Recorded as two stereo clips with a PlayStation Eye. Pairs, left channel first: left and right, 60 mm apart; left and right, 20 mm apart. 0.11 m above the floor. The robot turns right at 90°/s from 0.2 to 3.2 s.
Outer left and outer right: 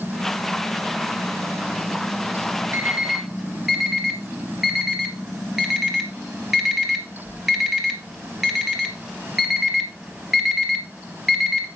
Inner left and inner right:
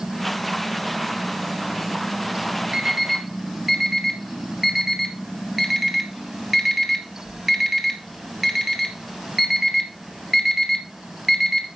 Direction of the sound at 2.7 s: 40° right (ahead or behind).